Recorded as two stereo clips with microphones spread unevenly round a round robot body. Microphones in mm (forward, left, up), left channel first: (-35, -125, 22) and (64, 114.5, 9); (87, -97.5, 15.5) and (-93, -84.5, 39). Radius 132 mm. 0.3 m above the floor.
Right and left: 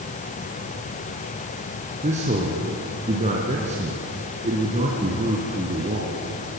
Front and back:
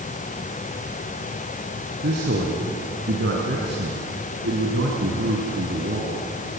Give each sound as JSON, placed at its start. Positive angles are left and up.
{"t": 2.0, "sound": "a man speaking", "azimuth_deg": 130, "distance_m": 3.0}